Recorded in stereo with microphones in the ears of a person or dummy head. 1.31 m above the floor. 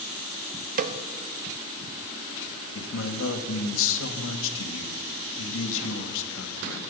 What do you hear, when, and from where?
0.8 s a snare drum: 40° right (ahead or behind), 1.0 m
2.8 s a man speaking: 75° left (ahead or behind), 2 m